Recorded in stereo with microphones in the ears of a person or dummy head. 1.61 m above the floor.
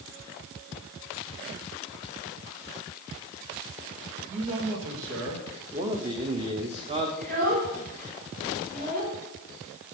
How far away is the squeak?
No squeak in this recording.